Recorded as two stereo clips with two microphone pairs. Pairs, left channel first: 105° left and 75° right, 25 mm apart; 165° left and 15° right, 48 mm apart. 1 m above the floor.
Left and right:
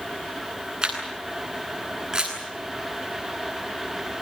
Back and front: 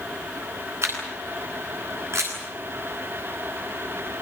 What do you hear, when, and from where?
0.8 s a camera shutter: 15° right, 10 m